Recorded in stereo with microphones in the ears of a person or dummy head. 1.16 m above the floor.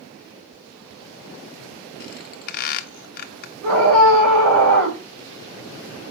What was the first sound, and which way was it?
A squeak, 50° left (ahead or behind).